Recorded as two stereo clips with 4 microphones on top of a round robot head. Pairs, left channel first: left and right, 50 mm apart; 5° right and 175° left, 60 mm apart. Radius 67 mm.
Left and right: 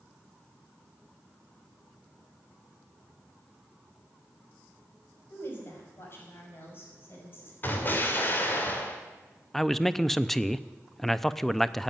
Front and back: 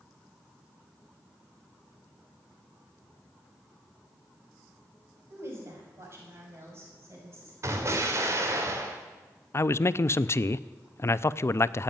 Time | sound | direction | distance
5.3 | a woman speaking | 130° left | 5 m
7.6 | an explosion | 140° left | 2.5 m
9.5 | a man speaking | 10° left | 0.6 m